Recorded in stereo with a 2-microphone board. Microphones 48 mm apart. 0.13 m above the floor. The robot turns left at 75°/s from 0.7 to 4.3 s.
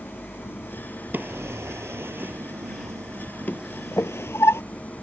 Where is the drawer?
40° right (ahead or behind); by 4.6 s 65° left (ahead or behind).